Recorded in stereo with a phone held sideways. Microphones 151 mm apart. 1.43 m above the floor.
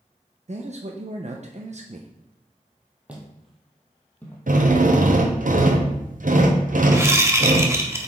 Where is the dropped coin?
No dropped coin in this recording.